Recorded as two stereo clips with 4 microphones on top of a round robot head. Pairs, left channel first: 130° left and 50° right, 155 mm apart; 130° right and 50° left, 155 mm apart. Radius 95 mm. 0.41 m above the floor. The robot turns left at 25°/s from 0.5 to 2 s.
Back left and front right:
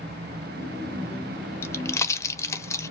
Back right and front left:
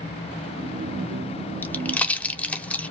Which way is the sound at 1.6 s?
175° left.